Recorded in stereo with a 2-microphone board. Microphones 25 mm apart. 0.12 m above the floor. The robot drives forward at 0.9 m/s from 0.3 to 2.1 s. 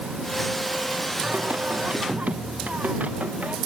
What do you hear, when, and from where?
1.2 s singing: 80° right